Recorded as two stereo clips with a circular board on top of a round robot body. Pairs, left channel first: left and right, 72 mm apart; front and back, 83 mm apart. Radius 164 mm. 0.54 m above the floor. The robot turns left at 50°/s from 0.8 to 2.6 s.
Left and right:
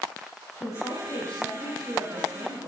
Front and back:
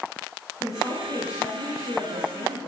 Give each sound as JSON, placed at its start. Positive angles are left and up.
{"t": 0.6, "sound": "a woman speaking", "azimuth_deg": 45, "distance_m": 8.0}